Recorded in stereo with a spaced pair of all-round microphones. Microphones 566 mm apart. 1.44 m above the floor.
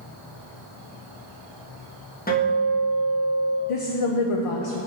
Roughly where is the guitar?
Centre.